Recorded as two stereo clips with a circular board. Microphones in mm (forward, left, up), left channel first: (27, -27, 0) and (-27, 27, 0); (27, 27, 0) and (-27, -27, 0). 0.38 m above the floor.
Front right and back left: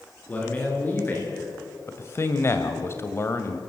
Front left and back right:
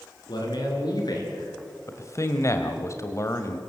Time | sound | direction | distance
0.3 | a man speaking | 25° left | 5.5 m
1.9 | a man speaking | 5° left | 1.7 m